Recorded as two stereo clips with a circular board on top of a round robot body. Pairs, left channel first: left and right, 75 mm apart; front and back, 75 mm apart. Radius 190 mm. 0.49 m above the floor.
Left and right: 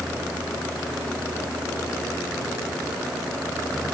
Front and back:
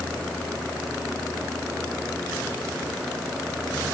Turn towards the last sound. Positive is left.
No sound to turn to.